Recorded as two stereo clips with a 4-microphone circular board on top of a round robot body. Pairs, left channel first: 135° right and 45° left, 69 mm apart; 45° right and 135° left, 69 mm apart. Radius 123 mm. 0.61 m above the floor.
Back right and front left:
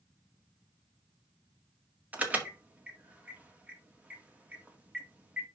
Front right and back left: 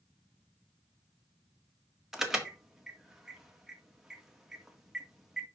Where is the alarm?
60° left, 1.7 m.